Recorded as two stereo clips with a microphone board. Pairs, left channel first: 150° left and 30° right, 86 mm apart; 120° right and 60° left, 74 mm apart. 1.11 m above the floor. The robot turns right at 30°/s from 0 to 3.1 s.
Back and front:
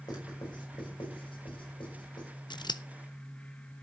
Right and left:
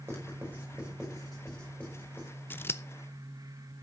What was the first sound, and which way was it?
Writing, 115° left.